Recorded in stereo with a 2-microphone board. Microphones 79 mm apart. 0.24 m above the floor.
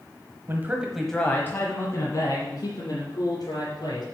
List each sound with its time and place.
0.5 s a man speaking: 35° right (ahead or behind), 1.2 m; by 4.0 s 60° left (ahead or behind), 4 m